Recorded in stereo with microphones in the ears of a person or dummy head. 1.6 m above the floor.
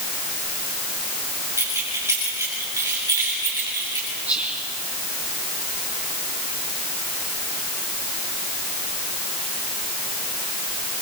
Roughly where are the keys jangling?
Centre.